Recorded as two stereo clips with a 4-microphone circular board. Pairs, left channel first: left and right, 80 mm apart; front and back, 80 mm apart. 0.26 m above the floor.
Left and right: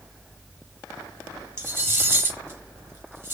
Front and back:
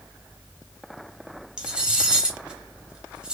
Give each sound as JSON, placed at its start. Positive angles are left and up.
{"t": 1.6, "sound": "cutlery clinking", "azimuth_deg": -115, "distance_m": 0.6}